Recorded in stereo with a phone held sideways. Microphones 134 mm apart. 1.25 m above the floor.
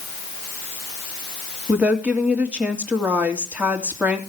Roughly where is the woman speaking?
Centre.